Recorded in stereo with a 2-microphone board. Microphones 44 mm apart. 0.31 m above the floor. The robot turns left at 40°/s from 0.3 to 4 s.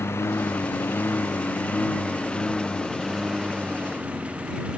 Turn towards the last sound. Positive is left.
turn(degrees=-25)  # may be behind; listen again after turning